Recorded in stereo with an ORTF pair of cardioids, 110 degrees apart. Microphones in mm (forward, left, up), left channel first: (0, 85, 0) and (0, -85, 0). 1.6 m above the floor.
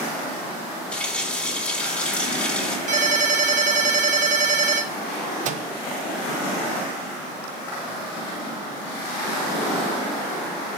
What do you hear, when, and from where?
0.9 s a running tap: 5° left, 3.5 m
2.9 s a ringtone: 50° right, 5.5 m
5.5 s a microwave: 50° right, 0.7 m